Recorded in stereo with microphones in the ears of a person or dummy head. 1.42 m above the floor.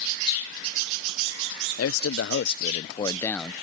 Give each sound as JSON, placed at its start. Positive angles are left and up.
{"t": 1.8, "sound": "a man speaking", "side_deg": 85}